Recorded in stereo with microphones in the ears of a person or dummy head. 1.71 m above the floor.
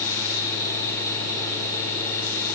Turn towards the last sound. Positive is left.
No sound to turn to.